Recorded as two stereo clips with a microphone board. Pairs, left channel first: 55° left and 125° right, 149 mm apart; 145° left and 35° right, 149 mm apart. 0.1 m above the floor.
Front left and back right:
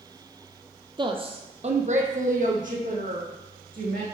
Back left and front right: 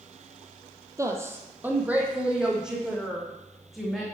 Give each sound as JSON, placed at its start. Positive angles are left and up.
{"t": 1.0, "sound": "a woman speaking", "azimuth_deg": -90, "distance_m": 1.5}